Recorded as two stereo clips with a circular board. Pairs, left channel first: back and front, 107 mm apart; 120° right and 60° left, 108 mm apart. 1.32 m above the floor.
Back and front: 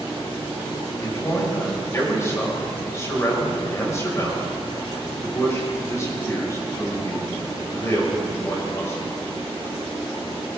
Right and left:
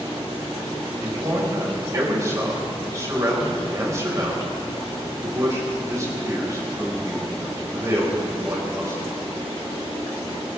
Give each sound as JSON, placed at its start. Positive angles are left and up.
{"t": 1.0, "sound": "a man speaking", "azimuth_deg": 120, "distance_m": 5.5}